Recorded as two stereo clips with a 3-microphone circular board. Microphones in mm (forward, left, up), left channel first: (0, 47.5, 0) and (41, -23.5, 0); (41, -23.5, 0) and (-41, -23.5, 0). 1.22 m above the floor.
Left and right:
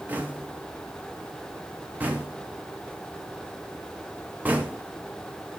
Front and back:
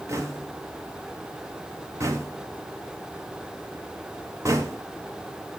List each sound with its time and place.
0.1 s knocking: 125° right, 1.0 m